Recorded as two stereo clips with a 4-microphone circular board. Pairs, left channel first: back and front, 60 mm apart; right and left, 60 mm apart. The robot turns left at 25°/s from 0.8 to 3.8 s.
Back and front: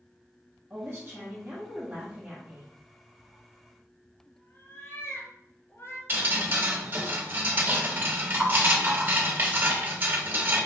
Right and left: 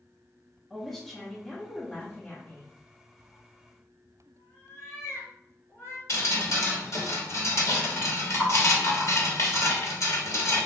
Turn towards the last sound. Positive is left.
turn(degrees=-55)